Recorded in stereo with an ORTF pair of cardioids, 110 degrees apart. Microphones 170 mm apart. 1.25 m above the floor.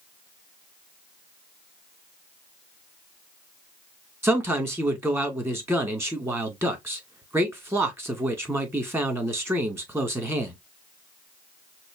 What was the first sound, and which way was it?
A man speaking, 15° right.